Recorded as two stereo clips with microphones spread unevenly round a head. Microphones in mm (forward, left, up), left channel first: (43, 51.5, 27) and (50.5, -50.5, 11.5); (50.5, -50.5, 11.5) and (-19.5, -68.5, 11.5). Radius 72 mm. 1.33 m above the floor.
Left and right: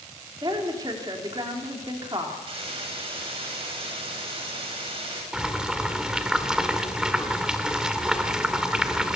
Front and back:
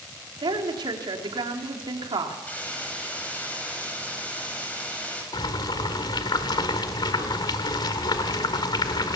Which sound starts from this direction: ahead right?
A hiss, at 2.5 s.